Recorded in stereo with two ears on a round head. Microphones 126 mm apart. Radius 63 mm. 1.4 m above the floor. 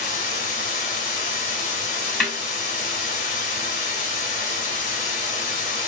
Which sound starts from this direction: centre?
A snare drum, at 2.2 s.